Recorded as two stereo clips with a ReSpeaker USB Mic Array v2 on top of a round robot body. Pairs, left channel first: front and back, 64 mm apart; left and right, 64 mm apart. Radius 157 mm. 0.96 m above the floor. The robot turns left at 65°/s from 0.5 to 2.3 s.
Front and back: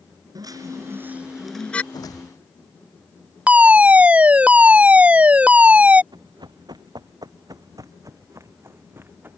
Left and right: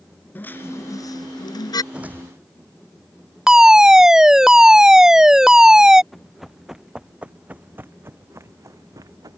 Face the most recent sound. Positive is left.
turn(degrees=-120)